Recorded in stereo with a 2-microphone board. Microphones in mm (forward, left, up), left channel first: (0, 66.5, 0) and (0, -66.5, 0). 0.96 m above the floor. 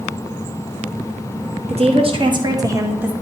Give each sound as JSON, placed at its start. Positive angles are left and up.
{"t": 1.7, "sound": "a woman speaking", "side_deg": -55, "distance_m": 1.5}